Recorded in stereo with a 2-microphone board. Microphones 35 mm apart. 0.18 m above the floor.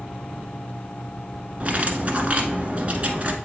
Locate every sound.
1.6 s cutlery clinking: 40° right (ahead or behind), 1.1 m